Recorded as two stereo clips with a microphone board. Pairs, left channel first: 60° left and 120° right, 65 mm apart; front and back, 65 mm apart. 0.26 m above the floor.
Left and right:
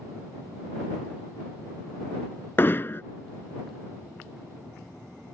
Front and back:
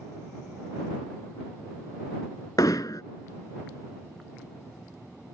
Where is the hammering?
5° left.